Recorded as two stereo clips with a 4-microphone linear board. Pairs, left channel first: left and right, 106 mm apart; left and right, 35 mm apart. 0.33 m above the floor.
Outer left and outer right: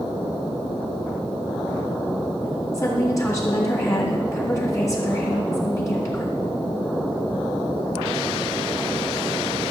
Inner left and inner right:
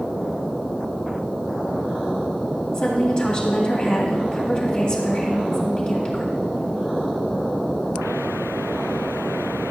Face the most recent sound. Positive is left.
turn(degrees=30)  # may be behind; listen again after turning